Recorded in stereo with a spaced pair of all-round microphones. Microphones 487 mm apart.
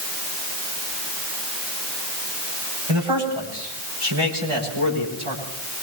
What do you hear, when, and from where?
2.9 s a man speaking: 75° right (ahead or behind), 9 m; by 5.4 s 80° right, 10.5 m